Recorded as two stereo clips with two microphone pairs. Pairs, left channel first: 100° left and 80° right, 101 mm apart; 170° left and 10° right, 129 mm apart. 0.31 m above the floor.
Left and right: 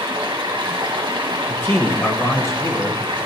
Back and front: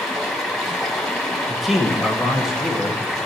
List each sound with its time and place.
0.0 s running water: 105° right, 1.7 m
1.5 s a man speaking: 80° left, 1.3 m